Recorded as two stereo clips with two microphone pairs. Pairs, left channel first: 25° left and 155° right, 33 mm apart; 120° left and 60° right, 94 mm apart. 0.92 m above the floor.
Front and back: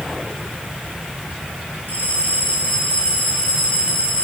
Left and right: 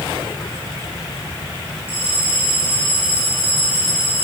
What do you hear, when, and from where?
1.9 s a bell: 55° left, 8.5 m